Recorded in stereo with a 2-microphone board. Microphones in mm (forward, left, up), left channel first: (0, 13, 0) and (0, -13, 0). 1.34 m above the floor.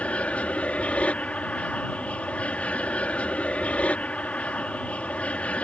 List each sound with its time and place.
0.0 s an aircraft: 60° left (ahead or behind)